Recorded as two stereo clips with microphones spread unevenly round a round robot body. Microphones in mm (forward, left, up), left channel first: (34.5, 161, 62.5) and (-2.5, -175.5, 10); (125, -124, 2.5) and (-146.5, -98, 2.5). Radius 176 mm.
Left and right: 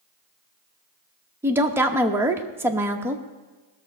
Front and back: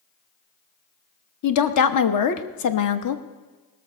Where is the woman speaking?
15° right, 1.0 m.